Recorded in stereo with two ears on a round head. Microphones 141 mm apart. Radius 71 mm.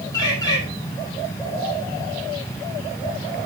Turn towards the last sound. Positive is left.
turn(degrees=25)  # may be behind; listen again after turning